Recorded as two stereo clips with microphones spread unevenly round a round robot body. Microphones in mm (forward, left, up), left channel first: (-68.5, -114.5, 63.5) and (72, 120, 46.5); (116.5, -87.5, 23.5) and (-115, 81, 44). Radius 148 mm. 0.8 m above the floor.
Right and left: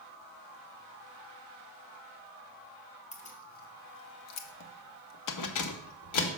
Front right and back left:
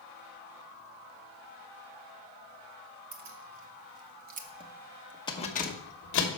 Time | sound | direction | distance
3.1 | keys jangling | 170° left | 1.4 m